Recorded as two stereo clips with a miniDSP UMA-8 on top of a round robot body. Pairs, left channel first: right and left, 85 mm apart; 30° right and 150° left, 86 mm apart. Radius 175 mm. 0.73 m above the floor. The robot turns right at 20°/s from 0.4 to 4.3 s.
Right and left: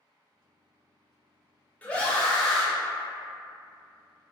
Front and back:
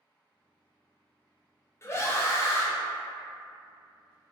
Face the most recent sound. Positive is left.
turn(degrees=20)